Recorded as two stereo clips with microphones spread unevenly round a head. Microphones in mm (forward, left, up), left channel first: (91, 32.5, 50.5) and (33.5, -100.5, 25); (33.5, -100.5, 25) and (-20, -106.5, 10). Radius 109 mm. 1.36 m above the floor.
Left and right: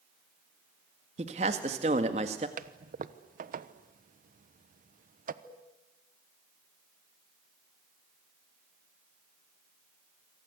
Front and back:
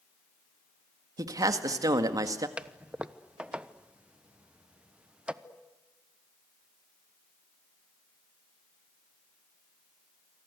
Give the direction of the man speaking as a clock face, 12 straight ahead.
6 o'clock.